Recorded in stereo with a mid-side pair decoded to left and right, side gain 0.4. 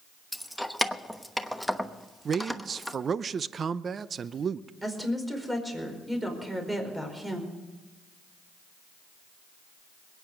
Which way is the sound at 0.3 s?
Straight ahead.